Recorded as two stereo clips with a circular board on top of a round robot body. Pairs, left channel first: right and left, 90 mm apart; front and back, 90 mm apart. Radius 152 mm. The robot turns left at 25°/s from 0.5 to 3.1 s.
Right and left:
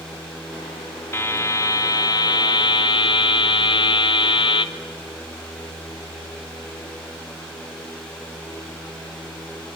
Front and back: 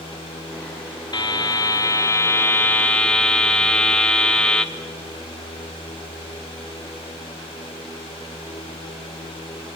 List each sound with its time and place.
1.1 s a buzzer: 30° right, 1.1 m; by 4.7 s 80° right, 1.1 m